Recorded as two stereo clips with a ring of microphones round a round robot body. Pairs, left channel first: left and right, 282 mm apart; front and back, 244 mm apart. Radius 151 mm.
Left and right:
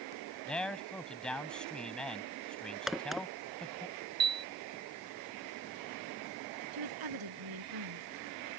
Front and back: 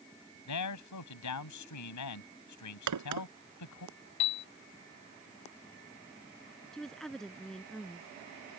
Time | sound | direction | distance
0.5 | a man speaking | 5° left | ?
2.9 | a crack | straight behind | ?
4.2 | a piano | 35° right | ?
6.7 | a woman speaking | 90° right | ?